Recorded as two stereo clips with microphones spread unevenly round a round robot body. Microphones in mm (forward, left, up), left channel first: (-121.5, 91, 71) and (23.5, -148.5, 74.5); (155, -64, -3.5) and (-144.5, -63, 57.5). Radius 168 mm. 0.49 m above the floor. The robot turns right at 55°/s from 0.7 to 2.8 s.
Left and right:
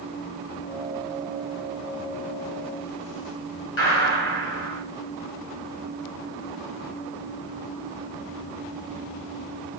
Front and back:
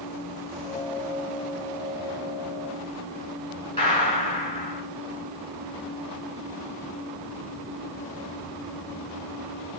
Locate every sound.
3.8 s a gunshot: 70° left, 2.5 m